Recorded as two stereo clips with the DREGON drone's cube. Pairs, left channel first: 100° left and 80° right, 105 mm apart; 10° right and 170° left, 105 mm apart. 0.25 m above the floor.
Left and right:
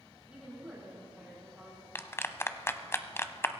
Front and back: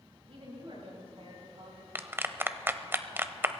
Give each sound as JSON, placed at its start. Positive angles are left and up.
{"t": 0.3, "sound": "a woman speaking", "azimuth_deg": -160, "distance_m": 7.5}
{"t": 1.9, "sound": "a clap", "azimuth_deg": 125, "distance_m": 0.8}